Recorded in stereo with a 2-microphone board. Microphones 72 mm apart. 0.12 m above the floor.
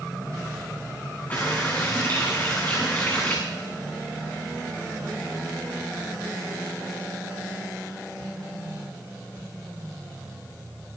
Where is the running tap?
25° left (ahead or behind), 8 m.